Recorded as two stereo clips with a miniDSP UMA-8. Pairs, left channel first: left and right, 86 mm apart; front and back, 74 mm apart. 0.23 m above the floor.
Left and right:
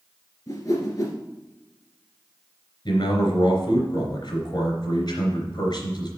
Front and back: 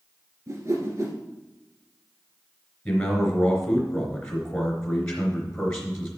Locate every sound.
0.5 s a whoosh: 135° left, 1.8 m
2.9 s a man speaking: 80° left, 3 m